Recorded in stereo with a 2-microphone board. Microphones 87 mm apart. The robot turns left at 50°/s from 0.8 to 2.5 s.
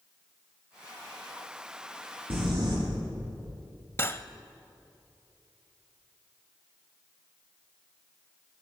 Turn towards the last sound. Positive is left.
turn(degrees=30)  # may be behind; listen again after turning